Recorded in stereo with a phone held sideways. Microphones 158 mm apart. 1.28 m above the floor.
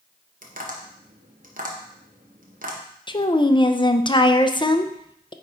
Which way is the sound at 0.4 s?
60° right (ahead or behind).